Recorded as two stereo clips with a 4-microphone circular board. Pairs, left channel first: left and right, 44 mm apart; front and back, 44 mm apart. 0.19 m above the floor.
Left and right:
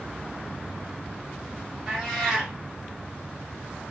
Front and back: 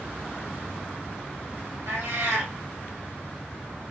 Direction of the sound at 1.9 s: 170° right.